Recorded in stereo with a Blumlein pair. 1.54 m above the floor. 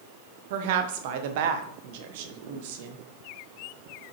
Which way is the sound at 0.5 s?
50° right.